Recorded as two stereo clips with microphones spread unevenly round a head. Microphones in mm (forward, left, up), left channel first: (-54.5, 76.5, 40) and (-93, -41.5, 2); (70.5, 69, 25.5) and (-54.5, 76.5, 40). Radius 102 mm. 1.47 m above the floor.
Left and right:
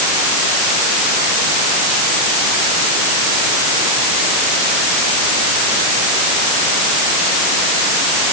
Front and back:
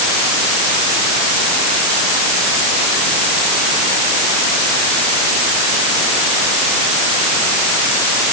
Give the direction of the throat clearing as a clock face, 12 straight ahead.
I don't hear throat clearing.